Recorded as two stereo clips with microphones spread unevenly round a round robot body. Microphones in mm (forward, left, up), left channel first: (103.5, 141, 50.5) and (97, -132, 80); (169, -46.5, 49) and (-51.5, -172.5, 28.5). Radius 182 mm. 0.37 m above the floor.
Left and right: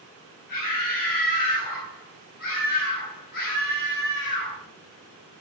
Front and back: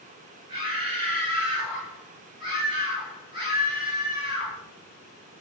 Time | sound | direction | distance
0.5 | a scream | 140° left | 3.5 m